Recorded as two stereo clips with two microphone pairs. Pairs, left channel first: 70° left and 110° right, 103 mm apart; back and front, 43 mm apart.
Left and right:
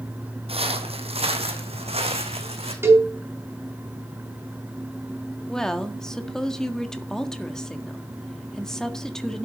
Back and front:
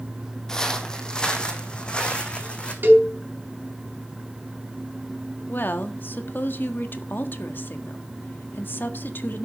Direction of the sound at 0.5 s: 110° right.